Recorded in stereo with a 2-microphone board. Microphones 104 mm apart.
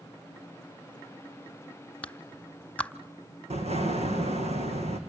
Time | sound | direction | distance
2.0 | a clap | 10° left (ahead or behind) | 0.9 m
3.5 | an explosion | 85° right | 4 m